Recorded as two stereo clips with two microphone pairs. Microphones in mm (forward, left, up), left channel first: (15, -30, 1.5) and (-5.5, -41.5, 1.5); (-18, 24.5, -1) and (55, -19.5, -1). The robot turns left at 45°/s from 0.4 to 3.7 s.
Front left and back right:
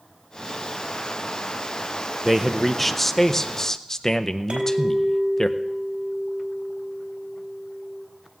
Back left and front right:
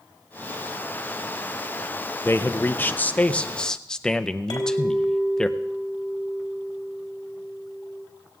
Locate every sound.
2.2 s a man speaking: 135° left, 0.6 m; by 5.5 s 70° left, 0.6 m
4.5 s a clink: 170° right, 3.5 m